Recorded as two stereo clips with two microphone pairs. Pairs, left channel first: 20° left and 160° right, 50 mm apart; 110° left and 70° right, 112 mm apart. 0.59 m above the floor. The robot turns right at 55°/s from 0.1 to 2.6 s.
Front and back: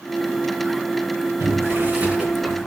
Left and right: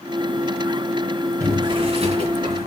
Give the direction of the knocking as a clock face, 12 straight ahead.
I don't hear knocking.